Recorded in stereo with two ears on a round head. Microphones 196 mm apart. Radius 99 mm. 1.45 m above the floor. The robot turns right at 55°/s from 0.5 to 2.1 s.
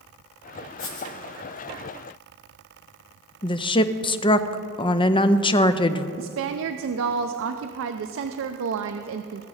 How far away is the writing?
About 1.6 m.